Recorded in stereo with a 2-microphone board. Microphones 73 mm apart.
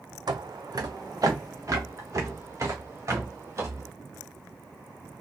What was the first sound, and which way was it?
Footsteps, 70° right (ahead or behind).